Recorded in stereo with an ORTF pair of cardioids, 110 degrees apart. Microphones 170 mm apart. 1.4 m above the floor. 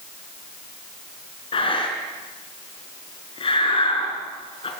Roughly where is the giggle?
I don't hear a giggle.